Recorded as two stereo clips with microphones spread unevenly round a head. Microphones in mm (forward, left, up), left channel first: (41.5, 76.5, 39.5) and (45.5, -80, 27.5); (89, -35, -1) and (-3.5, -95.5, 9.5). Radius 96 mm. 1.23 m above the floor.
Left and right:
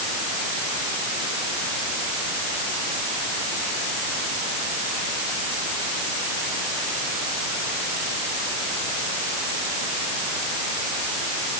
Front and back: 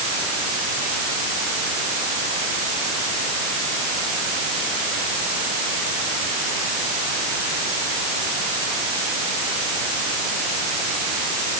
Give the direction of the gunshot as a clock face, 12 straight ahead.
No gunshot in this recording.